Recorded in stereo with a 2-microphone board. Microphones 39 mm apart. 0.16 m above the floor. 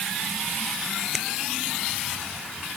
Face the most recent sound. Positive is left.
turn(degrees=0)  # may be behind; listen again after turning